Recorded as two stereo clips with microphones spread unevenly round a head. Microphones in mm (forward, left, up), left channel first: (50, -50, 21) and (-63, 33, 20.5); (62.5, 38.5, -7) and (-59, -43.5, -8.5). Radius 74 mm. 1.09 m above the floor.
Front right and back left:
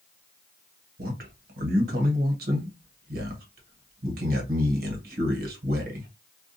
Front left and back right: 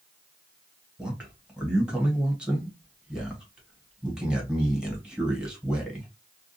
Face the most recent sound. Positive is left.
turn(degrees=130)